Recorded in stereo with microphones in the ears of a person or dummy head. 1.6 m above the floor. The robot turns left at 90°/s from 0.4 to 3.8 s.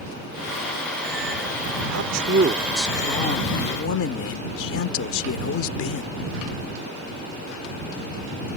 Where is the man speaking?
100° right; by 6.1 s 90° left.